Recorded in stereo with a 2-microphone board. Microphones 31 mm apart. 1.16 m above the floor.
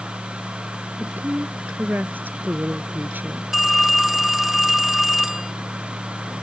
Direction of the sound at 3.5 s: 5° right (ahead or behind).